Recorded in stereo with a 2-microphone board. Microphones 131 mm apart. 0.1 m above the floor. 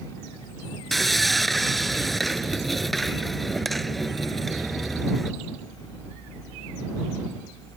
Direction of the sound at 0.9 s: Centre (ahead or behind).